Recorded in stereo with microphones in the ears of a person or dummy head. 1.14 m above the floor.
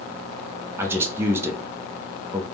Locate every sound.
0.8 s a man speaking: 15° right (ahead or behind), 0.5 m